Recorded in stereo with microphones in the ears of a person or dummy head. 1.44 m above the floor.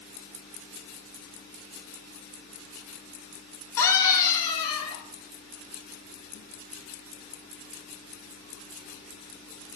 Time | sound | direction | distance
3.8 | a scream | 5° left (ahead or behind) | 1.7 m